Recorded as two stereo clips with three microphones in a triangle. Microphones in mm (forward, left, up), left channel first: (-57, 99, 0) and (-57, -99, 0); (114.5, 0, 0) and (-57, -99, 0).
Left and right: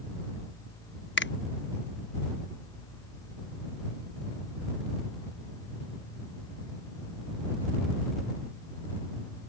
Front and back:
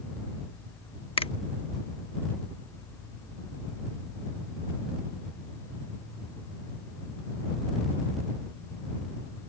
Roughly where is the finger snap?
Left.